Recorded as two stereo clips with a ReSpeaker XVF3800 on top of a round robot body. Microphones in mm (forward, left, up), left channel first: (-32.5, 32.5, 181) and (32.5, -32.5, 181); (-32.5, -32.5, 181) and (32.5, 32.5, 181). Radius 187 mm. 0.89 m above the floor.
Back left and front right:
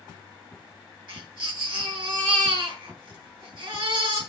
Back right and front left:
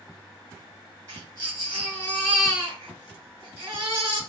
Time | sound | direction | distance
1.1 | a baby crying | 5° right | 9 m